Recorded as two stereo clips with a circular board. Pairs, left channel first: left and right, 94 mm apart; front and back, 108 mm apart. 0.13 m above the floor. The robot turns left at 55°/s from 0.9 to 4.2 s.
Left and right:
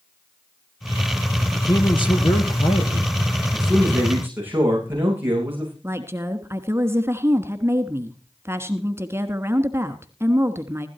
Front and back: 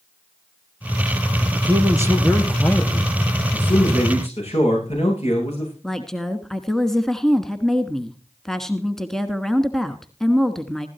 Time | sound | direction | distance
1.5 | a man speaking | 145° left | 3 m
3.5 | a man speaking | 15° left | 10 m
5.8 | a woman speaking | 80° right | 1.3 m